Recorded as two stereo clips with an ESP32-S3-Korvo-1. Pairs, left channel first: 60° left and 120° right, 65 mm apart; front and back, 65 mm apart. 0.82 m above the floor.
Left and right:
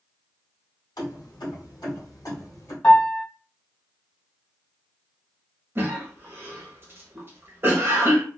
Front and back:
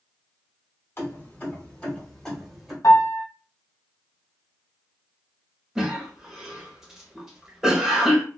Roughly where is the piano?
Ahead.